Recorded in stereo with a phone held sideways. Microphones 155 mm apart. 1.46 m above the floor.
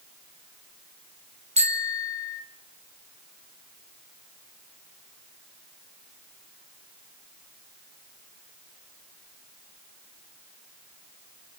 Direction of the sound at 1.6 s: 40° right (ahead or behind).